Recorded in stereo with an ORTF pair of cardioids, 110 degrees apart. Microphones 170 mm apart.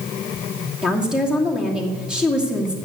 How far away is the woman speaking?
About 2.5 m.